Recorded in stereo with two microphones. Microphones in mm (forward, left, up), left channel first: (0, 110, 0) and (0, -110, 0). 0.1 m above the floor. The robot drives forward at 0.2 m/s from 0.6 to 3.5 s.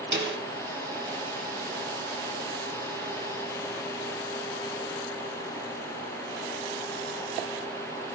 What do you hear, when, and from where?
0.1 s a snare drum: 50° right (ahead or behind), 1.2 m